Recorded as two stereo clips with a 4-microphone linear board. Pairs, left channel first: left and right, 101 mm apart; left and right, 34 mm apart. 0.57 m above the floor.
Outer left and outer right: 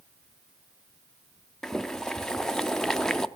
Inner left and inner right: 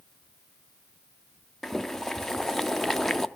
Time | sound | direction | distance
1.6 | boiling | 5° left (ahead or behind) | 0.5 m